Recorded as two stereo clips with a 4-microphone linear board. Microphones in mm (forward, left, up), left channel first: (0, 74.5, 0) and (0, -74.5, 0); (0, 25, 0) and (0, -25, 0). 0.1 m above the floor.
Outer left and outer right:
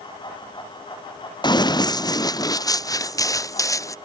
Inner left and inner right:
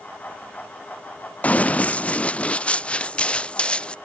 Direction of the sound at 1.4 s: 30° left (ahead or behind).